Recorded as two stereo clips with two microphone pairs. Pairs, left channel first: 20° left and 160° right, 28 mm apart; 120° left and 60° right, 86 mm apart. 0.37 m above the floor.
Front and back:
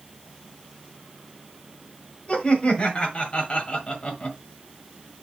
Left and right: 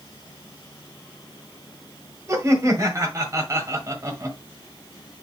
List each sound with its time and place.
2.3 s laughter: 15° right, 1.4 m